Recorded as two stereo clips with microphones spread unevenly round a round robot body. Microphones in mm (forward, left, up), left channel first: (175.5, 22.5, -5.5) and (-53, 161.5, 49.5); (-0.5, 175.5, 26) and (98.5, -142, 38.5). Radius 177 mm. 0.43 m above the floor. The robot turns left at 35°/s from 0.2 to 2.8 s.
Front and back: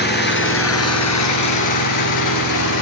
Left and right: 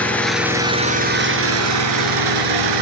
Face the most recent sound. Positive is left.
turn(degrees=-70)